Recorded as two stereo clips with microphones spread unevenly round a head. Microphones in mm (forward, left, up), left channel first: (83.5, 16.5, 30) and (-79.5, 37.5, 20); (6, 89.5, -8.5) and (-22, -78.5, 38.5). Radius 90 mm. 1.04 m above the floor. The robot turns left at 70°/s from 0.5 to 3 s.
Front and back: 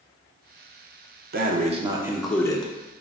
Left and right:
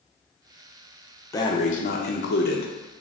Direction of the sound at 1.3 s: 150° left.